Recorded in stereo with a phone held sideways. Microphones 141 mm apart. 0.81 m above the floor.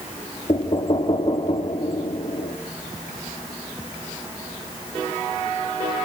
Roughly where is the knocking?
Left.